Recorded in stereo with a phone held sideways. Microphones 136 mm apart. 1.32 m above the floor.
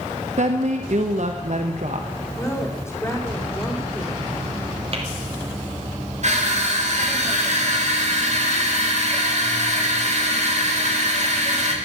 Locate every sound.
0.4 s a woman speaking: 60° right (ahead or behind), 1.1 m
2.4 s a woman speaking: 20° left (ahead or behind), 3.5 m
4.9 s tapping: 45° right (ahead or behind), 2.5 m
6.2 s crushing: 60° right (ahead or behind), 3 m